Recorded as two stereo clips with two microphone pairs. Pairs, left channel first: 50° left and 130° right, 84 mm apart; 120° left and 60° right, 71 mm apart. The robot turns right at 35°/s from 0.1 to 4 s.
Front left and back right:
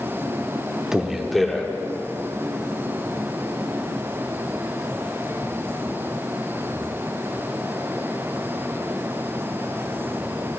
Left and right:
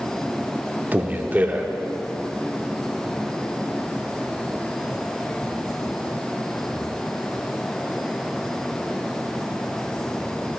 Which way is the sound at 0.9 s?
55° right.